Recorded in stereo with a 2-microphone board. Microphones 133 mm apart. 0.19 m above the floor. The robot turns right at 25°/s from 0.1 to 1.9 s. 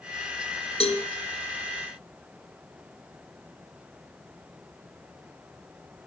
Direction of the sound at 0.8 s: 50° left (ahead or behind).